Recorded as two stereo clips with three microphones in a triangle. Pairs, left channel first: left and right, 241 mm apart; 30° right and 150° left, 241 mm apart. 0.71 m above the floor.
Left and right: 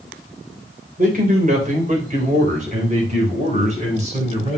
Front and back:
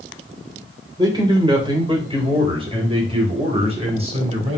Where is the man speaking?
140° right, 2.5 m; by 4.6 s 150° right, 4.5 m.